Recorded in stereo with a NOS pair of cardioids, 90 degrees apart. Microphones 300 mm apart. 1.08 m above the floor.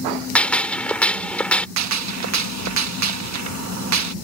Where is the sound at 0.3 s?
5° left.